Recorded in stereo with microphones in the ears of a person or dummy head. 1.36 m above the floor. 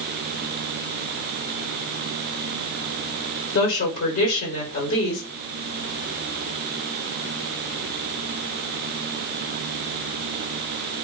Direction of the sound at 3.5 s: 60° left (ahead or behind).